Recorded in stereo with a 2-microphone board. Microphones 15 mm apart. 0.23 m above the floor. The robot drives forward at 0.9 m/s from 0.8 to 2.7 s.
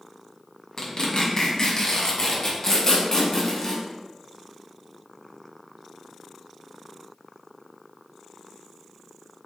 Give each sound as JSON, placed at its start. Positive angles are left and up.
{"t": 0.8, "sound": "tearing paper", "side_deg": 45, "distance_m": 1.7}